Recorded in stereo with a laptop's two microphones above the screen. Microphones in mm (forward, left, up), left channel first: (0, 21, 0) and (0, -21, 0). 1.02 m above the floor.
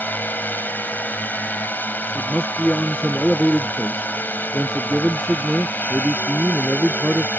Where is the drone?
50° left (ahead or behind).